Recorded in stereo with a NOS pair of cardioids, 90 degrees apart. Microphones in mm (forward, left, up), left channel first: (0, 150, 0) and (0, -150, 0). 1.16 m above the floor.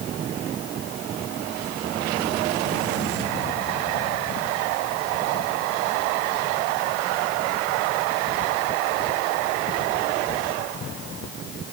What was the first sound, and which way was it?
Only background noise.